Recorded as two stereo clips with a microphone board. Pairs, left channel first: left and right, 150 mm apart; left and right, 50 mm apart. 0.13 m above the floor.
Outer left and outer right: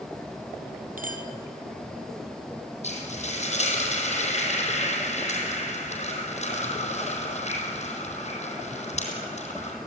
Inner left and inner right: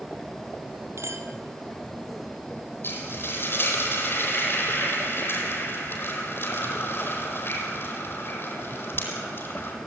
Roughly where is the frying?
Left.